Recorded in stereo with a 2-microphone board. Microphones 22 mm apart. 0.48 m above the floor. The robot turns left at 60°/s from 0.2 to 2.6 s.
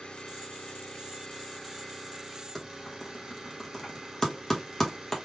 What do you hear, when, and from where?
0.0 s an engine running: 110° left, 1.3 m; by 5.2 s 35° right, 1.3 m
2.5 s typing on a keyboard: 15° left (ahead or behind), 1.4 m; by 5.1 s 20° left (ahead or behind), 1.4 m